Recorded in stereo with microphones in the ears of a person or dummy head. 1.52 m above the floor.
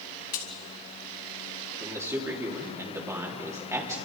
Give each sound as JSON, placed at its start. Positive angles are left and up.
{"t": 0.3, "sound": "a crack", "side_deg": 45, "distance_m": 2.5}
{"t": 1.8, "sound": "a man speaking", "side_deg": -15, "distance_m": 3.5}